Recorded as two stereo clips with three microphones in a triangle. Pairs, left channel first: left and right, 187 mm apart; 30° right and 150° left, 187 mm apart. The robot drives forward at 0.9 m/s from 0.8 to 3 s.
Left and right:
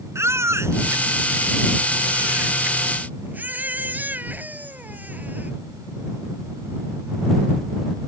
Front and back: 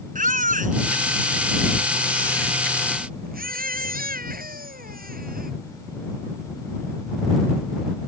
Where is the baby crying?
165° right; by 5.5 s 170° right.